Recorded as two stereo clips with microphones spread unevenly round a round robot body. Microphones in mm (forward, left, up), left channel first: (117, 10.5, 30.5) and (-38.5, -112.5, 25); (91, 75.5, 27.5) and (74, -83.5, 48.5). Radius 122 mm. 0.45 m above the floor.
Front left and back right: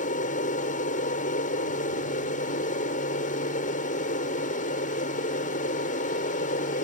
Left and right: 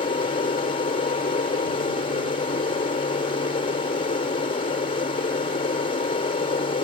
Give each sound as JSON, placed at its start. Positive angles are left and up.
{"t": 0.0, "sound": "an aircraft", "azimuth_deg": 65}